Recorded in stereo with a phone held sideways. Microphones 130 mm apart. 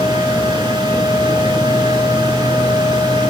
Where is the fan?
40° right (ahead or behind), 1.5 m.